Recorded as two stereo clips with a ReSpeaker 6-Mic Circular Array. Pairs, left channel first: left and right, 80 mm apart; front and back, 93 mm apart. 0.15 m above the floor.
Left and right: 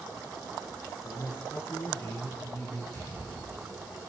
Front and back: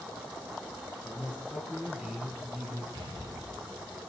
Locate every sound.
1.0 s a man speaking: 100° left, 2.5 m; by 2.8 s 115° left, 1.6 m
2.9 s an explosion: 150° left, 7 m